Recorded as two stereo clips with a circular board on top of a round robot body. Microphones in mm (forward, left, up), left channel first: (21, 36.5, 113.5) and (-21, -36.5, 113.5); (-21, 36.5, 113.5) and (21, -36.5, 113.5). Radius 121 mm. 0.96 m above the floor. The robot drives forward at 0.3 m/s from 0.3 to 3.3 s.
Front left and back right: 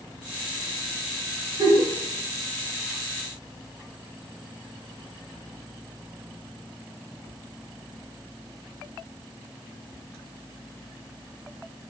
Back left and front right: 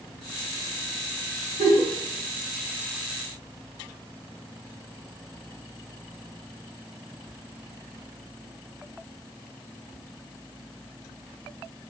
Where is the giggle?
75° right, 2 m; by 1.9 s 80° right, 2 m.